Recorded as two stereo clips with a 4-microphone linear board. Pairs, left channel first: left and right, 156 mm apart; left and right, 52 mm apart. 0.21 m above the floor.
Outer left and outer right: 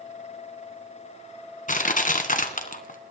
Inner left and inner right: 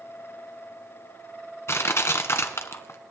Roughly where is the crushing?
Left.